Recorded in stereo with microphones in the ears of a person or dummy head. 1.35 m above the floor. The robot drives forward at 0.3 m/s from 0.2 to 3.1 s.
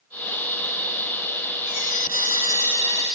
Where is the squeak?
40° left (ahead or behind), 1.3 m; by 3.2 s 30° left (ahead or behind), 1.6 m.